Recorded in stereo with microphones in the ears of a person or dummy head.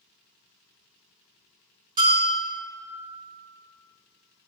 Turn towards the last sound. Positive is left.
turn(degrees=-25)  # may be behind; listen again after turning